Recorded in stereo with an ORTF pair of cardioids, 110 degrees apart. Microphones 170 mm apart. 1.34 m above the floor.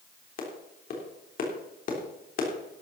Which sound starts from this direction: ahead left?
A clap, at 0.4 s.